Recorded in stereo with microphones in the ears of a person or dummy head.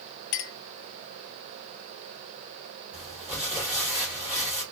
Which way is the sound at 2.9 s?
10° right (ahead or behind).